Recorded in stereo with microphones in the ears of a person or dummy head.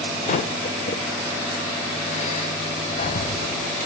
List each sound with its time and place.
0.3 s breathing: 40° left (ahead or behind), 0.7 m